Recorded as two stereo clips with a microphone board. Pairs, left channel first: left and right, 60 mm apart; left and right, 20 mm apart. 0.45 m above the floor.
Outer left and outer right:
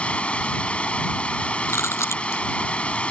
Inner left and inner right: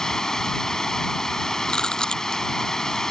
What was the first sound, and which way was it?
Running water, 20° left (ahead or behind).